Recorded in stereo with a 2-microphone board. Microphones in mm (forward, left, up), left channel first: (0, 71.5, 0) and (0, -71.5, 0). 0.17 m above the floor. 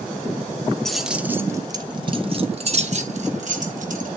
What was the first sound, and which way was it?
Keys jangling, 5° left (ahead or behind).